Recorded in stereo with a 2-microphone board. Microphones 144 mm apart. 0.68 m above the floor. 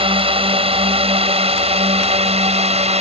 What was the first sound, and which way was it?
A drone, 40° right (ahead or behind).